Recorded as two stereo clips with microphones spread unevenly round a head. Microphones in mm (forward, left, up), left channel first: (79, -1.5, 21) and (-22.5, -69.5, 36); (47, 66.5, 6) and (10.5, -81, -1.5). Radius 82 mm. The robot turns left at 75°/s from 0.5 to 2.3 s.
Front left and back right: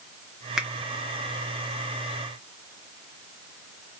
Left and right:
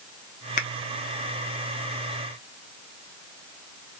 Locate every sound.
0.6 s a finger snap: 125° left, 0.6 m; by 0.7 s 115° left, 0.6 m